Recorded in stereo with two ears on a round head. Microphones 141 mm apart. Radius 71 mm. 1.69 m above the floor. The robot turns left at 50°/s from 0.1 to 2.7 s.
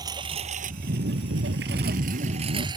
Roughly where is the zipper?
Ahead right.